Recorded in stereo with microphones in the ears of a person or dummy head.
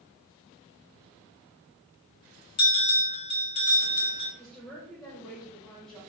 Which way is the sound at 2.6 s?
25° left (ahead or behind).